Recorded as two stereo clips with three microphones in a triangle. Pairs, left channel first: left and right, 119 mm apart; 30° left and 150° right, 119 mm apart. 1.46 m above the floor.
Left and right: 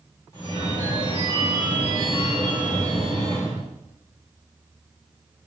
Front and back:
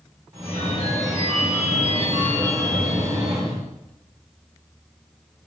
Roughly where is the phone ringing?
Behind left.